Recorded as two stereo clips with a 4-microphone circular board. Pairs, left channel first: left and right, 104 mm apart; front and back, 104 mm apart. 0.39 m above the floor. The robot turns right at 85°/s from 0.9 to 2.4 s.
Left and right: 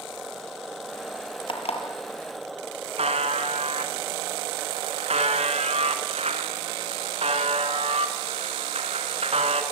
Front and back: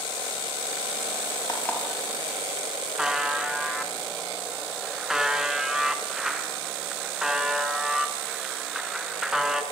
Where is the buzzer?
95° right, 2.5 m.